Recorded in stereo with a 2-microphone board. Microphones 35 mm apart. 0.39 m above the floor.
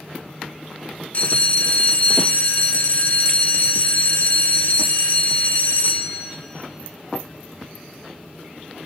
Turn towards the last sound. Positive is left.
turn(degrees=50)  # may be behind; listen again after turning